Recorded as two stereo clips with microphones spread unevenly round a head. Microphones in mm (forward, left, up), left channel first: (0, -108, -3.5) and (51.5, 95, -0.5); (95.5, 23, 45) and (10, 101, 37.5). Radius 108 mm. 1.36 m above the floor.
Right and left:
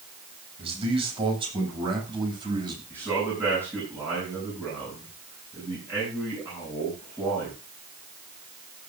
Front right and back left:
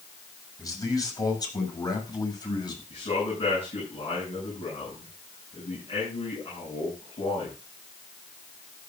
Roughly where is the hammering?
No hammering in this recording.